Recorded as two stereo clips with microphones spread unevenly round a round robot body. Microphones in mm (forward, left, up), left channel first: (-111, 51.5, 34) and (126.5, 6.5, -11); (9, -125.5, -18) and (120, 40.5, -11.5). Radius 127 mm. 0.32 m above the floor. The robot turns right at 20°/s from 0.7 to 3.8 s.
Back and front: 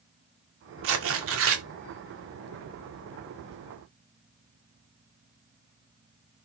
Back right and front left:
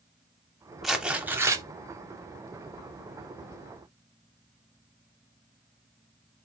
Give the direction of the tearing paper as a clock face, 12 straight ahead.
1 o'clock.